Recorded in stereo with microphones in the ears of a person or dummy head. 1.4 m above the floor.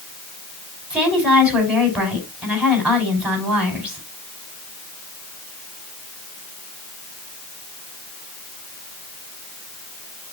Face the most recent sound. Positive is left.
turn(degrees=-10)  # may be behind; listen again after turning